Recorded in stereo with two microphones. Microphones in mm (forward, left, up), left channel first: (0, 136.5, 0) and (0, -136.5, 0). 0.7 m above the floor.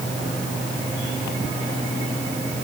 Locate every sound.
Only background noise.